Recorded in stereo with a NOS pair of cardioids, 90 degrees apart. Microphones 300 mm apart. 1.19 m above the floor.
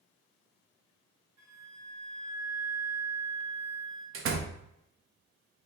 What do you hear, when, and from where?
1.4 s a flute: 70° right, 2.0 m
4.1 s a door slam: 45° right, 0.6 m